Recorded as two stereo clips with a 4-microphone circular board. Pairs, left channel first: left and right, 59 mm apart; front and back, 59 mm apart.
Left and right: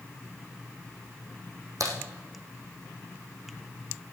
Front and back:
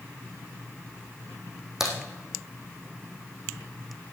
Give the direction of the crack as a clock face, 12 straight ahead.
3 o'clock.